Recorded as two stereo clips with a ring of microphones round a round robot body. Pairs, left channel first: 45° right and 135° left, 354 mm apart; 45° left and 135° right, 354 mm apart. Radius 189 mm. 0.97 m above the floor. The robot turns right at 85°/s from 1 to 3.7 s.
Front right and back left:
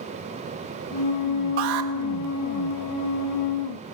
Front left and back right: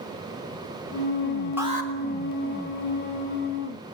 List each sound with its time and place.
1.6 s an alarm: 140° left, 3 m; by 1.9 s 170° left, 3 m